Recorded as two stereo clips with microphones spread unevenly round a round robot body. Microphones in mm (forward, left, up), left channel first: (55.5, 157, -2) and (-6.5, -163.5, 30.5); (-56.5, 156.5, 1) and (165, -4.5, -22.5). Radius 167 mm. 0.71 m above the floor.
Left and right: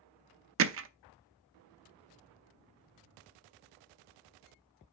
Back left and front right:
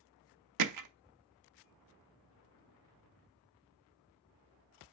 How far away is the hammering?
About 0.7 m.